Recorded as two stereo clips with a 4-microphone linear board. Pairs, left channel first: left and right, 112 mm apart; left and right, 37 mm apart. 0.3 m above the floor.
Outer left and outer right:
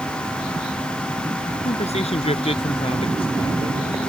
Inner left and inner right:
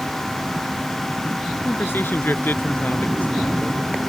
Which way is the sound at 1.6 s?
70° left (ahead or behind).